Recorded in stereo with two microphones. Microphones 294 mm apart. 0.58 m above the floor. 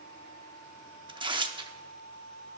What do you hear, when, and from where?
1.1 s tearing paper: 15° right (ahead or behind), 0.8 m